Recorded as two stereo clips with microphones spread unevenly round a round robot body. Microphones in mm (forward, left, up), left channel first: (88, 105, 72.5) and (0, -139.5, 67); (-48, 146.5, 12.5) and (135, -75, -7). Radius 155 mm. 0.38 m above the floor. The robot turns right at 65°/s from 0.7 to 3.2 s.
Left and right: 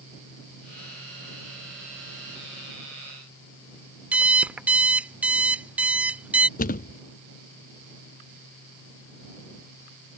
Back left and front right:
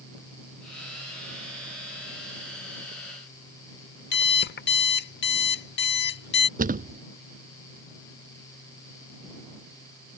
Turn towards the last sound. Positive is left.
turn(degrees=15)